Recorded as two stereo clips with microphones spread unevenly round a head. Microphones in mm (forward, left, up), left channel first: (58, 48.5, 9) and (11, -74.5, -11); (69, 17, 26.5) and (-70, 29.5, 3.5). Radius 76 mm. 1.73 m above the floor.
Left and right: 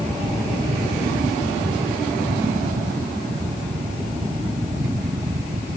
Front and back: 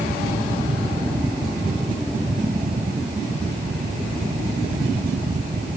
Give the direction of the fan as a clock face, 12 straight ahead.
5 o'clock.